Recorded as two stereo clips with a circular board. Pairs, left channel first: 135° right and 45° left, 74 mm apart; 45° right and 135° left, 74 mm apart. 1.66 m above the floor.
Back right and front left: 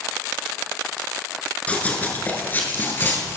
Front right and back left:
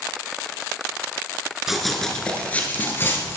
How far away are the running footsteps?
About 1.6 m.